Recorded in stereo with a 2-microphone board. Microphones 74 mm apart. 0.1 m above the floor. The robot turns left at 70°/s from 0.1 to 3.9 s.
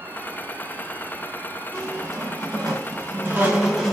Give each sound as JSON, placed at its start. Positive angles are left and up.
{"t": 1.7, "sound": "a squeak", "azimuth_deg": -35, "distance_m": 1.8}